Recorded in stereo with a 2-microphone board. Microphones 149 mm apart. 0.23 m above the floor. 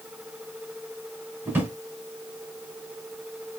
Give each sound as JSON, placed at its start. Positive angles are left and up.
{"t": 1.4, "sound": "a drawer", "side_deg": -15, "distance_m": 1.0}